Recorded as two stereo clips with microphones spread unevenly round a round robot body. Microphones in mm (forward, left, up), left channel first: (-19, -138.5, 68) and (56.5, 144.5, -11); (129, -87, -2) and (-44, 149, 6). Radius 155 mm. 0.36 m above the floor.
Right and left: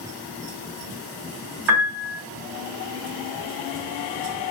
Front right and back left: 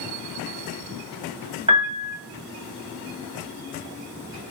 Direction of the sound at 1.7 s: 55° left.